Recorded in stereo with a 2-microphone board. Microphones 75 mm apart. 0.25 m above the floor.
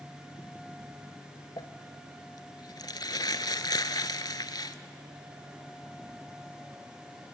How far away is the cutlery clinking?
No cutlery clinking in this recording.